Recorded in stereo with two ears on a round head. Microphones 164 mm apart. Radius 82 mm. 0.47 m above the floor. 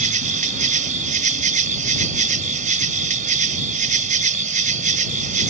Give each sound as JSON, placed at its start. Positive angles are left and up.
{"t": 0.0, "sound": "an insect", "side_deg": -45}